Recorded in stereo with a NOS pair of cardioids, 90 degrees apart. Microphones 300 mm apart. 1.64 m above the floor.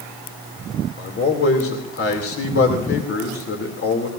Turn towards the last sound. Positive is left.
turn(degrees=50)